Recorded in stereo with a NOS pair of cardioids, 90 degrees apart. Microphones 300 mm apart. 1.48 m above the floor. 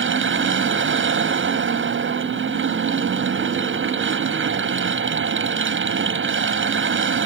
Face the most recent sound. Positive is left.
turn(degrees=-40)